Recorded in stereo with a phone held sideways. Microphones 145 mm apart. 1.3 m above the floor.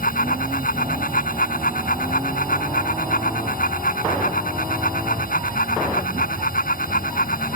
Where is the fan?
80° left.